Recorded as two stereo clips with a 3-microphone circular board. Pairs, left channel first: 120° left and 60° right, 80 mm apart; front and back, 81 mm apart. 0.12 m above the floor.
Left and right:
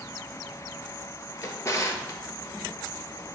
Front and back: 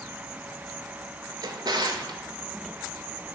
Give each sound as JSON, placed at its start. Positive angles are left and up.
{"t": 1.4, "sound": "a drawer", "azimuth_deg": 165, "distance_m": 0.5}